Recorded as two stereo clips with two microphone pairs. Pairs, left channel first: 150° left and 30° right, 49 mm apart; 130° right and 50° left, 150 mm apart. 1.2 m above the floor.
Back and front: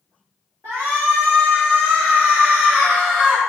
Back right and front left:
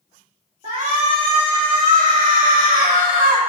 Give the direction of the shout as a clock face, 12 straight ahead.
12 o'clock.